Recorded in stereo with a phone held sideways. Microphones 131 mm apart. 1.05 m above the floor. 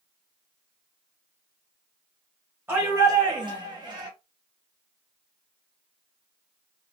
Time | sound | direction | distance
2.7 | a shout | 20° right (ahead or behind) | 0.9 m